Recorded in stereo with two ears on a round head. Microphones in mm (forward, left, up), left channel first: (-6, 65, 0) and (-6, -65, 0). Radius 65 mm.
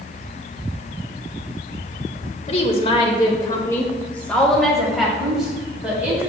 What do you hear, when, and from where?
2.5 s a woman speaking: 45° left (ahead or behind), 1.2 m; by 6.3 s 10° right (ahead or behind), 2.5 m